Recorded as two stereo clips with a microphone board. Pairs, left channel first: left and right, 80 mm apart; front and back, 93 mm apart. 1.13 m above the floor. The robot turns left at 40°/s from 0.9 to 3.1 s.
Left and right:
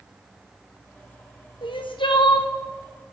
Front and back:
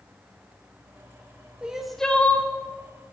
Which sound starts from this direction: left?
Crying, at 1.6 s.